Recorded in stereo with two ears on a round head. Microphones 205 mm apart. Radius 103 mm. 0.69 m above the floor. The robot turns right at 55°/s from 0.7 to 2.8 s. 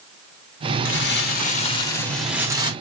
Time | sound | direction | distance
0.8 | crumpling | 105° left | 1.2 m